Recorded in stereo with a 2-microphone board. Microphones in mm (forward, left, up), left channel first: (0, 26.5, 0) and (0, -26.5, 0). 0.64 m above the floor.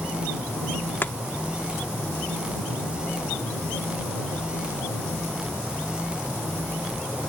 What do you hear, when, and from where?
1.0 s chopping: 45° left (ahead or behind)